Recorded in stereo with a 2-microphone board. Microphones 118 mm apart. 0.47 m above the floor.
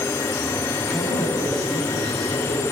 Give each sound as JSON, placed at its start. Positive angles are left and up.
{"t": 0.8, "sound": "a man speaking", "side_deg": 5, "distance_m": 3.0}